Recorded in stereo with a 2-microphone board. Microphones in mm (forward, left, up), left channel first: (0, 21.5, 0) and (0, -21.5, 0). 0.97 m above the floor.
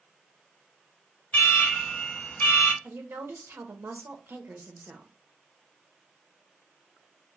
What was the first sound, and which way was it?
An alarm, 35° left (ahead or behind).